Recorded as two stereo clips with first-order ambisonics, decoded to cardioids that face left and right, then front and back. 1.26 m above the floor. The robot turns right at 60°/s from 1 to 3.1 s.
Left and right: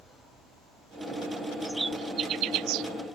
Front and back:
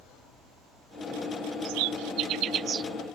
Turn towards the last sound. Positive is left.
turn(degrees=-90)